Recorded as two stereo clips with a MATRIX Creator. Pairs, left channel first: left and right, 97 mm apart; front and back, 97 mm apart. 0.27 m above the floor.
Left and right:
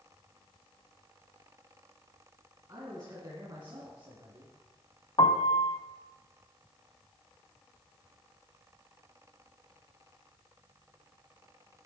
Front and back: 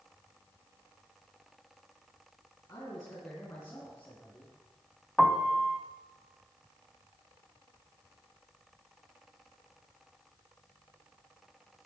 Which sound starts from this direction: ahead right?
A man speaking, at 2.7 s.